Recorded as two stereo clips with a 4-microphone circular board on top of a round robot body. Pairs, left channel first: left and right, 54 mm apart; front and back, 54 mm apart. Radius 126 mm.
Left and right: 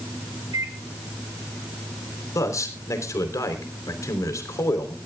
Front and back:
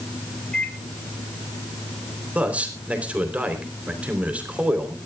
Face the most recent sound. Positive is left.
turn(degrees=110)